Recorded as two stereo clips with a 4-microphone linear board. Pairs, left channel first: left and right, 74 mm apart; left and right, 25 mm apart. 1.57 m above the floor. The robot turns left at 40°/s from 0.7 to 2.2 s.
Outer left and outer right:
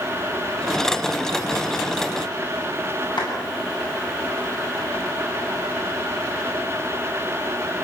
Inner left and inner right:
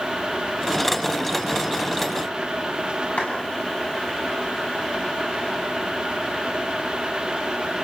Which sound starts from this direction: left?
A clap, at 3.2 s.